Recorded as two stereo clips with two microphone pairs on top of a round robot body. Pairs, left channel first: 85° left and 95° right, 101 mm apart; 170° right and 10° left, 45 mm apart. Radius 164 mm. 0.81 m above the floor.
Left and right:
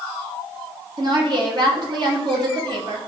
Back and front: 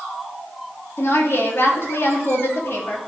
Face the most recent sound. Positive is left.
turn(degrees=-140)